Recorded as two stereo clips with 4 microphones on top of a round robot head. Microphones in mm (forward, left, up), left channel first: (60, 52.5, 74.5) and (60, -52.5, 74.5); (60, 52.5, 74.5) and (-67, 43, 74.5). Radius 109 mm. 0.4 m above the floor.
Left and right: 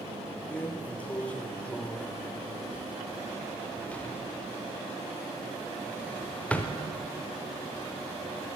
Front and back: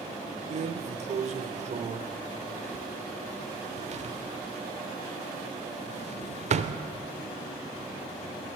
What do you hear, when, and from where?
0.5 s a drawer: 165° left, 0.7 m